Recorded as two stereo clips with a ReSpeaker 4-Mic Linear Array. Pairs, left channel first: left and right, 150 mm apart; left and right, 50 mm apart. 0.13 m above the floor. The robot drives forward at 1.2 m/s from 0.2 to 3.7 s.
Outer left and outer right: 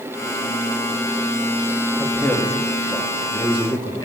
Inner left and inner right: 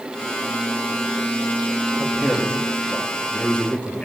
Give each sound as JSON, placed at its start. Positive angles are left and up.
{"t": 2.0, "sound": "a man speaking", "side_deg": 15, "distance_m": 4.0}